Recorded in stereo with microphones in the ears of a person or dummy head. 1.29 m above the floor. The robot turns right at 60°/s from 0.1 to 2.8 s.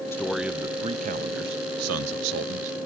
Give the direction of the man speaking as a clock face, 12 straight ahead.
7 o'clock.